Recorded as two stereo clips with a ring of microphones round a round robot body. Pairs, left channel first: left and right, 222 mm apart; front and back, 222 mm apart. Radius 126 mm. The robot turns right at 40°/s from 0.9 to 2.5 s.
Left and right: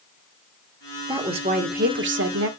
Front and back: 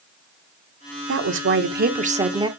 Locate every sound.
1.1 s a woman speaking: 165° right, 1.5 m; by 2.5 s 110° right, 1.5 m